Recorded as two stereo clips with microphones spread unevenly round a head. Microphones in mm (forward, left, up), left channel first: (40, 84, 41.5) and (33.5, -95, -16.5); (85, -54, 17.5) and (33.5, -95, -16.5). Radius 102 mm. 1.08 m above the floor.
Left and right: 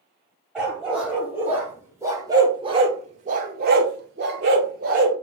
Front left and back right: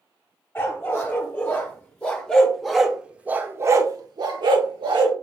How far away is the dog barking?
About 2.0 m.